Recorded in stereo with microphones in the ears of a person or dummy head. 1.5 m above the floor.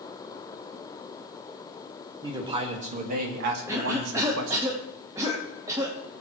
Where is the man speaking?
25° right (ahead or behind), 2 m; by 4.7 s 70° right (ahead or behind), 2 m.